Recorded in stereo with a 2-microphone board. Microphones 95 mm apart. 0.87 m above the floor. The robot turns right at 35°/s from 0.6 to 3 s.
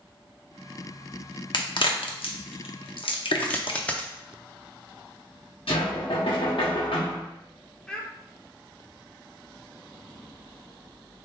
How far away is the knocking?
About 1.1 m.